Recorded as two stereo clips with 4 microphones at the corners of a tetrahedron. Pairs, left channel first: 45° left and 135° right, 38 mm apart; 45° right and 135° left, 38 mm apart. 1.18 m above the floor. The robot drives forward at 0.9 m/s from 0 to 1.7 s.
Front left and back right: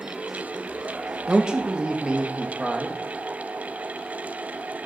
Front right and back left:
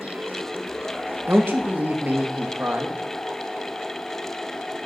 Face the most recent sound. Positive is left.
turn(degrees=160)